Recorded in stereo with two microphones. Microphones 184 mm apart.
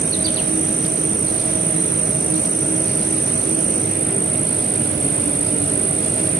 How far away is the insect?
About 0.9 m.